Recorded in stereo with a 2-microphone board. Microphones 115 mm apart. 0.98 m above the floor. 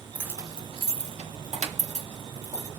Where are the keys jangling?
10° right (ahead or behind), 0.5 m; by 2.7 s 80° right, 1.5 m.